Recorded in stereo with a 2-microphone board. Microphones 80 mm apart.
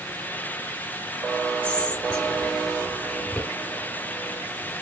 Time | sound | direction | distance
1.6 | whispering | 20° left (ahead or behind) | 1.7 m